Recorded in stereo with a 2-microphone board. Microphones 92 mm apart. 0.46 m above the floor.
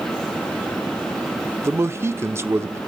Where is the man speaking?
30° right (ahead or behind), 0.7 m.